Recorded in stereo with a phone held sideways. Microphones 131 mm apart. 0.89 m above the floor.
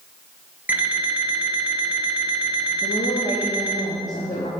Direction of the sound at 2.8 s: 70° left (ahead or behind).